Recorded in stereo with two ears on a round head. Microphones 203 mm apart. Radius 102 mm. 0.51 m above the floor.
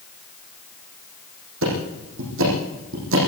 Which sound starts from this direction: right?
Ticking, at 1.6 s.